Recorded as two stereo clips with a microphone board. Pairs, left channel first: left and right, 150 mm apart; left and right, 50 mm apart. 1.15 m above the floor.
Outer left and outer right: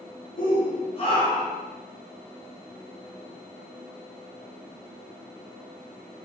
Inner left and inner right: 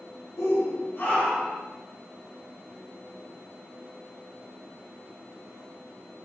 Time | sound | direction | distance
0.4 | a shout | 70° left (ahead or behind) | 1.4 m